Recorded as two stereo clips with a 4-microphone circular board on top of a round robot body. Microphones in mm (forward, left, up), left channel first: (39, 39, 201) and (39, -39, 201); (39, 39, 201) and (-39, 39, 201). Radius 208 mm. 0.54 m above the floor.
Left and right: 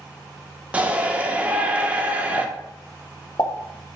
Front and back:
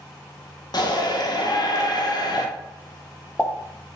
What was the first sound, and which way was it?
A shout, 20° right.